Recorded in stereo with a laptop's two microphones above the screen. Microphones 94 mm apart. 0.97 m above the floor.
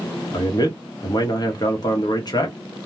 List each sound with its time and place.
0.3 s a man speaking: 45° left (ahead or behind), 1.1 m